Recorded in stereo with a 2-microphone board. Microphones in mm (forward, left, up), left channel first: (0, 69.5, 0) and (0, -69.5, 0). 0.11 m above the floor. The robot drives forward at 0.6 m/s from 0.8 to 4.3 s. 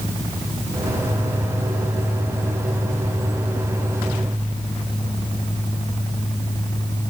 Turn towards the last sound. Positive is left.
No sound to turn to.